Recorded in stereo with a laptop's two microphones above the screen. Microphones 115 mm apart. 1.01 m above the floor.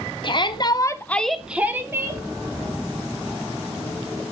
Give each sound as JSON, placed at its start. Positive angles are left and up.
{"t": 0.2, "sound": "a shout", "side_deg": 45, "distance_m": 0.8}